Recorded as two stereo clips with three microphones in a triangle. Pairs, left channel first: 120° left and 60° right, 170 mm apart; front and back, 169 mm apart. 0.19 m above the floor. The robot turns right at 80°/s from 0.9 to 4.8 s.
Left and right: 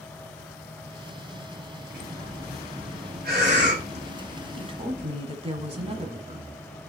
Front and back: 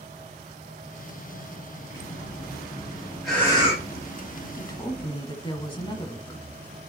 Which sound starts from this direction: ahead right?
A woman speaking, at 4.6 s.